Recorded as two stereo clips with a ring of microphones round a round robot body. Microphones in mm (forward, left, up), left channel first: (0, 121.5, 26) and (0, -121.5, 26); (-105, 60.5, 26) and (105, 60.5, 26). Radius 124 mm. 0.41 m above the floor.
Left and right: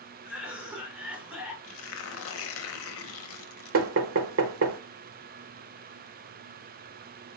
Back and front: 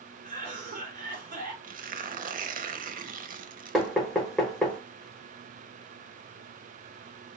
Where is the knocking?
90° right, 1.1 m.